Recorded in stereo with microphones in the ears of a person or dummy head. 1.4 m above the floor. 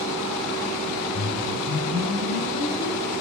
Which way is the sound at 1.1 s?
65° left (ahead or behind).